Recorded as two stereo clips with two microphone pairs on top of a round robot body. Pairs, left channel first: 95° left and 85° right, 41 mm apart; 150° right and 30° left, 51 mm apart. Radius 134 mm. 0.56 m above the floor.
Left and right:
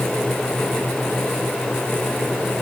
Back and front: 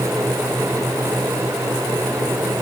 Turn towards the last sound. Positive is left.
No sound to turn to.